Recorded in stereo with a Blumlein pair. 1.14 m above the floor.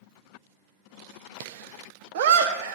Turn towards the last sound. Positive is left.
turn(degrees=-55)